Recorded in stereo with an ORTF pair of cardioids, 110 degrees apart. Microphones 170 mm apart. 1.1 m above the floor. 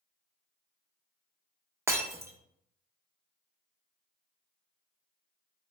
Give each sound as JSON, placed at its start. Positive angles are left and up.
{"t": 1.9, "sound": "breaking glass", "azimuth_deg": -15, "distance_m": 0.5}